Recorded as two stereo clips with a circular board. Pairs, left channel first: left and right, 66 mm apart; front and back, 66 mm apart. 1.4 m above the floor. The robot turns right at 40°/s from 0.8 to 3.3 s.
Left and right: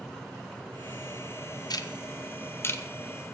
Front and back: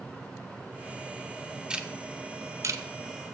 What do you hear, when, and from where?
1.7 s ticking: 100° left, 1.1 m; by 2.8 s 145° left, 1.1 m